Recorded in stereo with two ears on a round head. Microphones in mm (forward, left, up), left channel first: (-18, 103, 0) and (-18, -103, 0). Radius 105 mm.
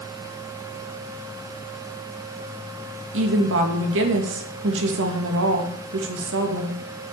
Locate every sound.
3.1 s a woman speaking: 60° right (ahead or behind), 2.5 m